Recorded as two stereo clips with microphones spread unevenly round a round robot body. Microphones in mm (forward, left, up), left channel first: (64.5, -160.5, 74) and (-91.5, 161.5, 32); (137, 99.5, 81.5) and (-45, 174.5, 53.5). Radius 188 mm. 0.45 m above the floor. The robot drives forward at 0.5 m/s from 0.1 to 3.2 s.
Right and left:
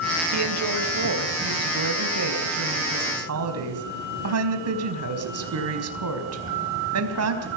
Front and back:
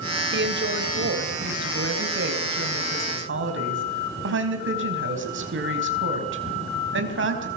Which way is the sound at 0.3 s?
155° left.